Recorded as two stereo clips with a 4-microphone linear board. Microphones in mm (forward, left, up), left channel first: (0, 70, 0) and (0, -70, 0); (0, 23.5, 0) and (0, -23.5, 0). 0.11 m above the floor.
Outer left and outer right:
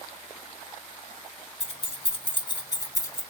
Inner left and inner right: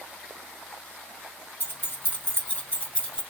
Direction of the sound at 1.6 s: 50° left (ahead or behind).